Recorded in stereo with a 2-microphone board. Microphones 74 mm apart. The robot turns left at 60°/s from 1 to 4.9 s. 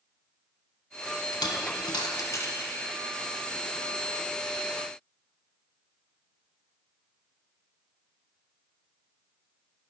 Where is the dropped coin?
70° left (ahead or behind), 0.9 m; by 2.7 s 25° left (ahead or behind), 0.9 m.